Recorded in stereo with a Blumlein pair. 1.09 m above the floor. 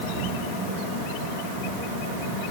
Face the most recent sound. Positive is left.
No sound to turn to.